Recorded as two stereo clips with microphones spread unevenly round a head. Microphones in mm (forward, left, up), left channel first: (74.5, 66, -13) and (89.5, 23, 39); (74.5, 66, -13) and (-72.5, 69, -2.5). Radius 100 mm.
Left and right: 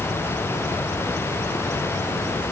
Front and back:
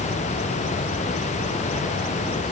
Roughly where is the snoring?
No snoring in this recording.